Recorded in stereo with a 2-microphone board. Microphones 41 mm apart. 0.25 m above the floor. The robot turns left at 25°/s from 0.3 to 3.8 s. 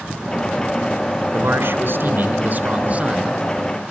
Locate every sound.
1.3 s a man speaking: 100° right, 3.5 m; by 3.9 s 160° right, 3.5 m